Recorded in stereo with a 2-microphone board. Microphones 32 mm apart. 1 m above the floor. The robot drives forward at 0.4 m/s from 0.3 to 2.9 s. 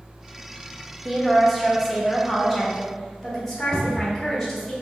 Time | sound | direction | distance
1.1 | a woman speaking | 5° right (ahead or behind) | 0.7 m
3.7 | a cupboard door | 25° left (ahead or behind) | 1.0 m